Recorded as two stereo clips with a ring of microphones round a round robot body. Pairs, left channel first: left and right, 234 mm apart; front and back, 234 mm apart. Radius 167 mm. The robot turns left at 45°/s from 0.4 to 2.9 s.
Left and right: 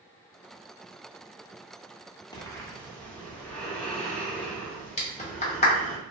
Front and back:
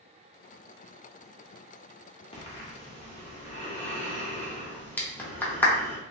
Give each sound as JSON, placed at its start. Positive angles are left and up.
{"t": 2.3, "sound": "breathing", "azimuth_deg": 35, "distance_m": 1.0}
{"t": 5.0, "sound": "a clap", "azimuth_deg": 75, "distance_m": 0.9}